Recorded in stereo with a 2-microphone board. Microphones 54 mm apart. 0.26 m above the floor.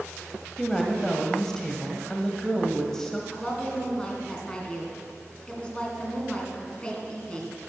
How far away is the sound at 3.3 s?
About 2 m.